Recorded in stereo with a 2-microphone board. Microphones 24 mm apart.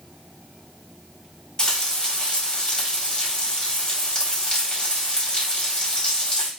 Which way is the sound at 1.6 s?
25° left (ahead or behind).